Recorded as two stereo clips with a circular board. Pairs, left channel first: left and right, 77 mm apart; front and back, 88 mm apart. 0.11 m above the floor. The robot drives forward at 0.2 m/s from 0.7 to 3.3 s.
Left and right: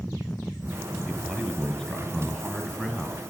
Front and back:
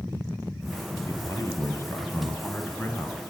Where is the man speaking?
20° left, 2.0 m; by 3.3 s 30° left, 1.8 m.